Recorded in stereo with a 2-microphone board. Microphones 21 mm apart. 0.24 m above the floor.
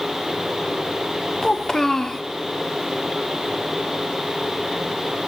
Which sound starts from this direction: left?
A child speaking, at 1.4 s.